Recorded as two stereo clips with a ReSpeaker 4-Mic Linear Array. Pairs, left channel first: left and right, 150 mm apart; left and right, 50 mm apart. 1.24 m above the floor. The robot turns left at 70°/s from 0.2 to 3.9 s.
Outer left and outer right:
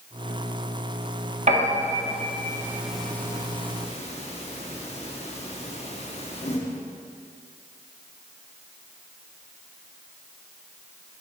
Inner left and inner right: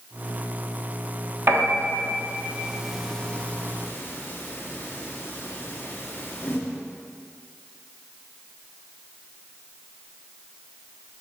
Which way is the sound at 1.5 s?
50° right (ahead or behind).